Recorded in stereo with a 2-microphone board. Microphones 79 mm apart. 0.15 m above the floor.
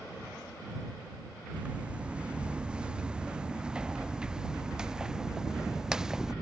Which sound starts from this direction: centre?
Footsteps, at 1.5 s.